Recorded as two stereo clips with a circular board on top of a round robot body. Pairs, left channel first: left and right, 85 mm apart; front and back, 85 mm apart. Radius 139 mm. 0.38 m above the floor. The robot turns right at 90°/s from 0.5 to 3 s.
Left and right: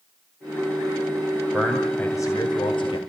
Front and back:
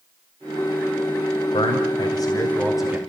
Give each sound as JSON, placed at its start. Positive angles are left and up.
{"t": 1.5, "sound": "a man speaking", "azimuth_deg": -20, "distance_m": 3.0}